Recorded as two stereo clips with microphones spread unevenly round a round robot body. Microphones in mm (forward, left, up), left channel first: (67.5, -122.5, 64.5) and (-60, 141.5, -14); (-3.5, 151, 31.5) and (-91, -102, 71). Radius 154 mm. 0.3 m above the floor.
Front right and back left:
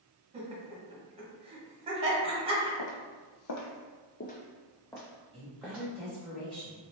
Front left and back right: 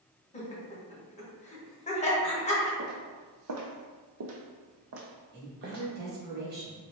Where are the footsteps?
50° right, 0.8 m; by 5.8 s 155° right, 1.3 m.